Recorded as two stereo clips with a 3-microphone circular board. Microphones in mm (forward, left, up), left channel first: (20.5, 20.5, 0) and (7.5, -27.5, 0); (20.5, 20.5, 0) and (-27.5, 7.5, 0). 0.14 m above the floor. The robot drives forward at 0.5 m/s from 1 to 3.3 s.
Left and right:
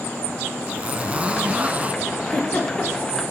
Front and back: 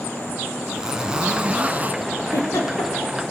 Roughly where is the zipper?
Behind right.